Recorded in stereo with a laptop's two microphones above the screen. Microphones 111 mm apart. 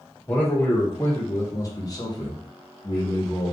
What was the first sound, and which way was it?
A man speaking, 20° left (ahead or behind).